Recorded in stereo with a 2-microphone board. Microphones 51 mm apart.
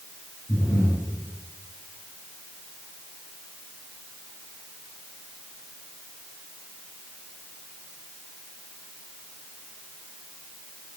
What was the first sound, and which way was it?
Breathing, 75° left (ahead or behind).